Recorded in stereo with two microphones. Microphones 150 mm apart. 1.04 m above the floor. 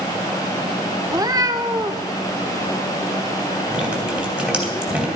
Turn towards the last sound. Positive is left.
turn(degrees=-5)  # may be behind; listen again after turning